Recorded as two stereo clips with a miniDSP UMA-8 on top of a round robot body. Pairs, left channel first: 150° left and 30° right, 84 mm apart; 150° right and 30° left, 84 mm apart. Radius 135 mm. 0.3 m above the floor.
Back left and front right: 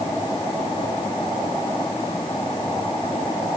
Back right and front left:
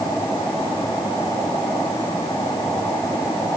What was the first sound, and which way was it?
Only background noise.